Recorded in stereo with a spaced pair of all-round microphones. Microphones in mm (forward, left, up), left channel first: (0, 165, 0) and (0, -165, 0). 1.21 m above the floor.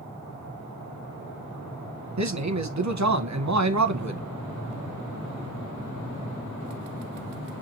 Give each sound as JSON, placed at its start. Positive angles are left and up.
{"t": 2.2, "sound": "a man speaking", "side_deg": -55, "distance_m": 0.7}